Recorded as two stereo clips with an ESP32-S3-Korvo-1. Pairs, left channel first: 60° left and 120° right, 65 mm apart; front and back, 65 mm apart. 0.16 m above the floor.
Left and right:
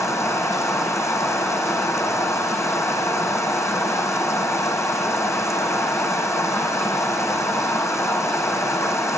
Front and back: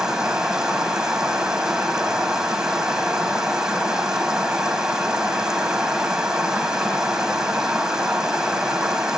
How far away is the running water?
About 3.5 m.